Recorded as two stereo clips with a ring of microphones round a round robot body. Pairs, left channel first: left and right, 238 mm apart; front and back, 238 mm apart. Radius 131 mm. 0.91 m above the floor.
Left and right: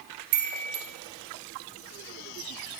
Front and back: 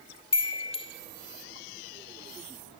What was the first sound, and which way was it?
A chime, 70° right.